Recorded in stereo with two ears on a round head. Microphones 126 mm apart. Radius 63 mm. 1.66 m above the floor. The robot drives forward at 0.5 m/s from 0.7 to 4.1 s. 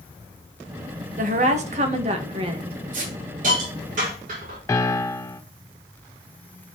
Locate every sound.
1.2 s a woman speaking: 60° right (ahead or behind), 1.6 m; by 2.8 s 40° right (ahead or behind), 2 m
2.9 s a hiss: 65° right (ahead or behind), 6 m; by 4.6 s 60° right (ahead or behind), 6.5 m
4.7 s a piano: 20° left (ahead or behind), 0.8 m